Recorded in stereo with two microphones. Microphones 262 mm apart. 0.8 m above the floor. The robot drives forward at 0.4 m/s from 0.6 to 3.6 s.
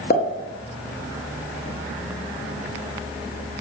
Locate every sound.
0.1 s a pop: 40° left (ahead or behind), 0.5 m